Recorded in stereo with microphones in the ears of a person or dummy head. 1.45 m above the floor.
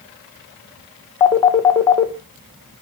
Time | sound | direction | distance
1.2 | a phone ringing | 15° left (ahead or behind) | 0.7 m